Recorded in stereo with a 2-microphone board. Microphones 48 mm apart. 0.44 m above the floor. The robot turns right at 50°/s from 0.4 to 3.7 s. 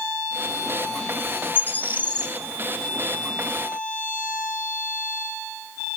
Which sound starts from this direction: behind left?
A bird, at 1.6 s.